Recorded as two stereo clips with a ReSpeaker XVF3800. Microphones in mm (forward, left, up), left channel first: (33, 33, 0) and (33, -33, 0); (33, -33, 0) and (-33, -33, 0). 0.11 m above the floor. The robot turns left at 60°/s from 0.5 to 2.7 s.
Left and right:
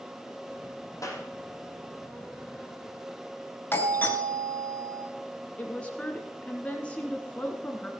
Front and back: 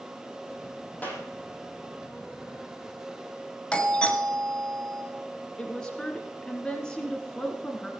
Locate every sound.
1.0 s a clap: 65° left, 4.5 m; by 1.2 s 50° left, 4.5 m
3.7 s a doorbell: 65° left, 2 m
5.6 s a woman speaking: 60° left, 1.6 m